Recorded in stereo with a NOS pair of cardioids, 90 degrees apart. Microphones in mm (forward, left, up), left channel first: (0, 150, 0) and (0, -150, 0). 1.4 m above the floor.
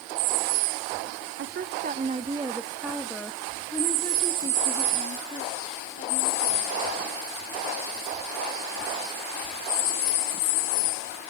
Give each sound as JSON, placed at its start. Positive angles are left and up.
{"t": 1.4, "sound": "a woman speaking", "azimuth_deg": -45, "distance_m": 1.2}